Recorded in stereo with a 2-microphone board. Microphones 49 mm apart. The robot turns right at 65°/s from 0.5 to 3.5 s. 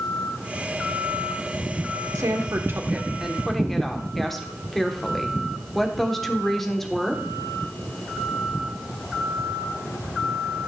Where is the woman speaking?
85° right, 1.2 m; by 7.2 s 5° left, 1.2 m.